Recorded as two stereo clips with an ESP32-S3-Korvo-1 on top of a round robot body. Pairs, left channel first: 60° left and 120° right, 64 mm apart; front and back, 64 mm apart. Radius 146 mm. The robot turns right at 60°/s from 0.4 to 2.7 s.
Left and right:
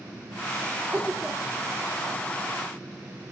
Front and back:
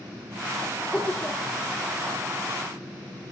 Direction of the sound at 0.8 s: 70° right.